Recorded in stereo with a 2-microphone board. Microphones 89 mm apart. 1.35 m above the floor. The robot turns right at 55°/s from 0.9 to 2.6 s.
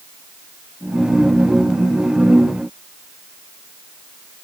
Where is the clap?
No clap in this recording.